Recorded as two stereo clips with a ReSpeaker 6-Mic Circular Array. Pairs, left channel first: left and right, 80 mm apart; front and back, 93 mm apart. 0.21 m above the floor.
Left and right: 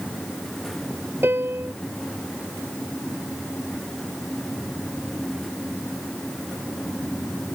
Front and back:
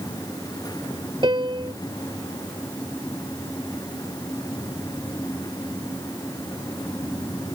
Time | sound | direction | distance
1.2 | a piano | 150° right | ?